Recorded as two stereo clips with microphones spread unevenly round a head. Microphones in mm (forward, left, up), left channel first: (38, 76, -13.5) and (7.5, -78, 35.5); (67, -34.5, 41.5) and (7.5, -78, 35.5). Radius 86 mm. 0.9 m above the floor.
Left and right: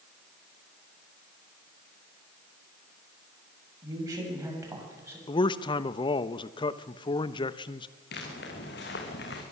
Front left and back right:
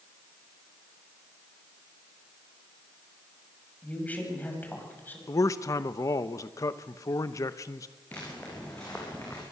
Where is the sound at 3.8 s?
35° right, 6.5 m; by 5.2 s 25° right, 7 m.